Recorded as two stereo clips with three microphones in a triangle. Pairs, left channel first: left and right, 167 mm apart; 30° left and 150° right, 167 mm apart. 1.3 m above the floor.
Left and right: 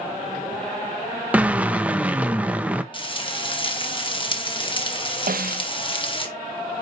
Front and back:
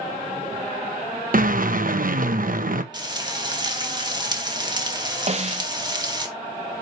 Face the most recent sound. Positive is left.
turn(degrees=-105)